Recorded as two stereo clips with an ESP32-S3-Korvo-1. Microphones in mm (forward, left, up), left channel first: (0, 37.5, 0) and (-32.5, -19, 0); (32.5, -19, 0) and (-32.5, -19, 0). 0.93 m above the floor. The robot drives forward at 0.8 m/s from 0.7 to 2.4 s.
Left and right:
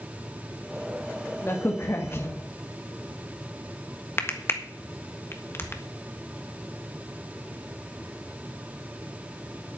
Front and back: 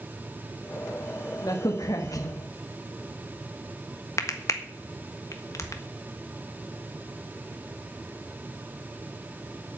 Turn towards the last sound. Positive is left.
turn(degrees=20)